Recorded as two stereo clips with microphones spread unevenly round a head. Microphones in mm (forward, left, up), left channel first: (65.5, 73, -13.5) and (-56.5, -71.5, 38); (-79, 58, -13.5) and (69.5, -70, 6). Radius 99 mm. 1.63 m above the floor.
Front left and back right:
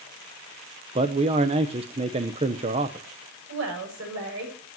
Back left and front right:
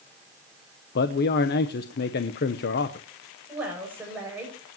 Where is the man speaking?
175° left, 0.9 m.